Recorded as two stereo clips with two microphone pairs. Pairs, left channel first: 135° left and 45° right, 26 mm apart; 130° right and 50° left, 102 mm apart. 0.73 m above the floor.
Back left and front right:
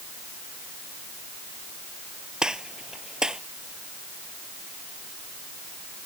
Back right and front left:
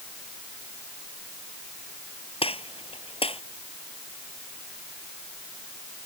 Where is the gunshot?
105° right.